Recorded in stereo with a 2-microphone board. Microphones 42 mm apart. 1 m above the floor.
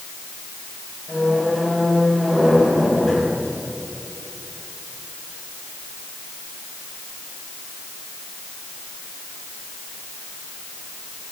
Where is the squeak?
10° left (ahead or behind), 5 m.